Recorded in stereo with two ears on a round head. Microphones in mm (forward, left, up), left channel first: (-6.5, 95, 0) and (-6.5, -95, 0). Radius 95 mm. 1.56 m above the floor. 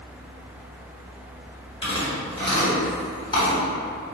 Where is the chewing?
25° left (ahead or behind), 1.6 m.